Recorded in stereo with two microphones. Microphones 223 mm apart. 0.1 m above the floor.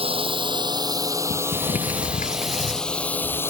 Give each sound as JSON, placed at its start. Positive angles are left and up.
{"t": 0.0, "sound": "a drone", "side_deg": -25}
{"t": 1.3, "sound": "a sliding door", "side_deg": 35}